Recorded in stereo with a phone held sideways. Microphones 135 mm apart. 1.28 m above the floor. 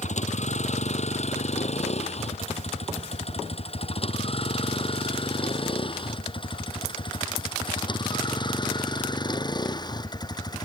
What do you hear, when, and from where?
0.0 s a vehicle: 55° left (ahead or behind); by 10.7 s 30° left (ahead or behind)